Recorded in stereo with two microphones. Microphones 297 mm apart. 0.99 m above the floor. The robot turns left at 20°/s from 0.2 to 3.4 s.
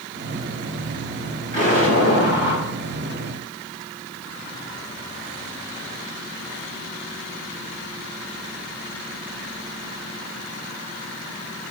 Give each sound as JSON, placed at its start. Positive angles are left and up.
{"t": 1.5, "sound": "an explosion", "side_deg": -25, "distance_m": 5.0}